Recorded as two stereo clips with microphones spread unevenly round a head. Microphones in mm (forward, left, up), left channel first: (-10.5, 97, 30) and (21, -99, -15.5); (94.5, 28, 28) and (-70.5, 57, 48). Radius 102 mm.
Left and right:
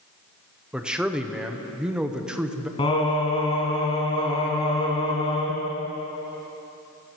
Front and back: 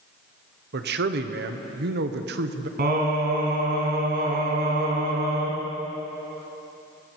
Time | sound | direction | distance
0.7 | a man speaking | 160° right | 0.9 m
2.8 | singing | 155° left | 2.5 m